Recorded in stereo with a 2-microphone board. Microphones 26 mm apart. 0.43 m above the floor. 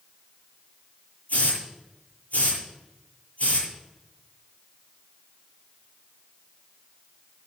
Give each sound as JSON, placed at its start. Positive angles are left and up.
{"t": 1.3, "sound": "a hiss", "side_deg": 75, "distance_m": 9.0}